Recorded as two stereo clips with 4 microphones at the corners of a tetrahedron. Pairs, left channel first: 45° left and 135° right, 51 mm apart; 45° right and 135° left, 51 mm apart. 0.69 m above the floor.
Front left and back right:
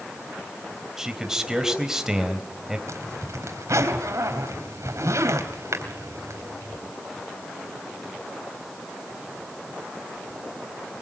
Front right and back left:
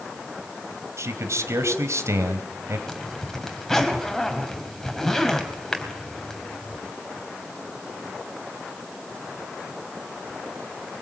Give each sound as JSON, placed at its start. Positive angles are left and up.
{"t": 1.0, "sound": "a man speaking", "azimuth_deg": 145, "distance_m": 3.5}
{"t": 2.9, "sound": "a zipper", "azimuth_deg": -130, "distance_m": 3.5}